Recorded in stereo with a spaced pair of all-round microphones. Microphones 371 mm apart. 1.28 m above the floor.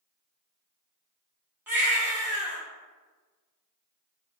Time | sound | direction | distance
1.7 | a baby crying | 5° right (ahead or behind) | 1.0 m